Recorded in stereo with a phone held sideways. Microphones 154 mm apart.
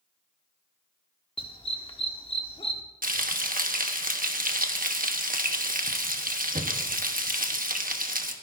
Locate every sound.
1.4 s a dog barking: 35° left (ahead or behind), 1.2 m
3.0 s frying: 65° right (ahead or behind), 1.2 m